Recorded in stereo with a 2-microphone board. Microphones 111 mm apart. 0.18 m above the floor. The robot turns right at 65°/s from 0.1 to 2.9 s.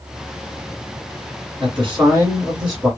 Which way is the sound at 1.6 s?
85° right.